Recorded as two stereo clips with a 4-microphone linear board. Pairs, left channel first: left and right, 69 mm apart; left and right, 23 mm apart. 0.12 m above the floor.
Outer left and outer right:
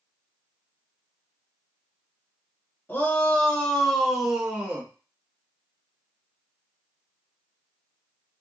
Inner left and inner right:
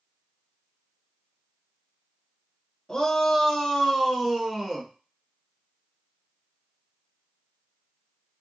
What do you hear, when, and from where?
2.9 s a shout: 30° left (ahead or behind), 1.2 m; by 4.9 s 25° right (ahead or behind), 1.2 m